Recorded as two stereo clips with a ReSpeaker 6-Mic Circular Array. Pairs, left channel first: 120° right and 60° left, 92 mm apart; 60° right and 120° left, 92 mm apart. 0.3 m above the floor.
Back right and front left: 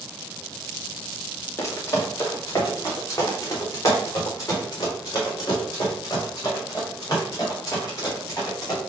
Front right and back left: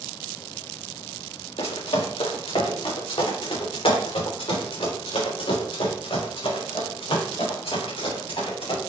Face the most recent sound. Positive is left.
turn(degrees=-70)